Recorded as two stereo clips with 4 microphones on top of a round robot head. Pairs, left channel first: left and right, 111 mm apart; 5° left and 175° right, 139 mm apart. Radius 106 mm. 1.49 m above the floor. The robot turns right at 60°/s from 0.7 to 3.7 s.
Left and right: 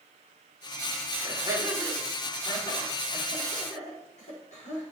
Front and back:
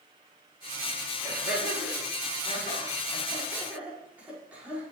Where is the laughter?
45° right, 5 m; by 4.8 s 105° left, 5 m.